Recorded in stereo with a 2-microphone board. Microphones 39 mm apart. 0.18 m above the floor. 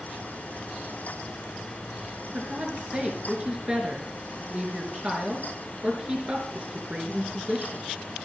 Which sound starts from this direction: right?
A woman speaking, at 2.3 s.